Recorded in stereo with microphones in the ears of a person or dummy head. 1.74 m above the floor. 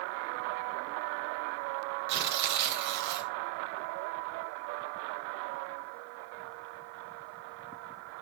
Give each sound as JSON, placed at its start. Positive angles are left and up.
{"t": 2.1, "sound": "tearing paper", "side_deg": -60, "distance_m": 1.8}